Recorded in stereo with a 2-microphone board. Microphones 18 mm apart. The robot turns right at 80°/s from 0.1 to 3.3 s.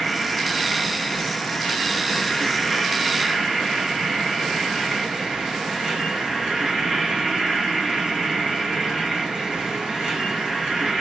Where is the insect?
25° right, 1.4 m; by 11.0 s 130° right, 1.4 m.